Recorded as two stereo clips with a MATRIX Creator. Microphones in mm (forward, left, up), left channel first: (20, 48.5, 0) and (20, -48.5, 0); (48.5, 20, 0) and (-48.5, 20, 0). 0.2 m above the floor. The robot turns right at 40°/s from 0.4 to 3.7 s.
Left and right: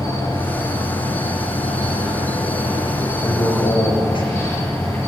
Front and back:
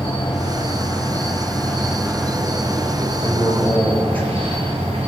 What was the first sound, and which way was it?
An insect, 25° left.